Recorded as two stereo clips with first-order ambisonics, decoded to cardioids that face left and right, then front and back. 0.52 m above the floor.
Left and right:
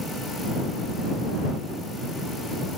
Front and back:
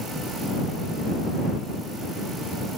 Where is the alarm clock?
No alarm clock in this recording.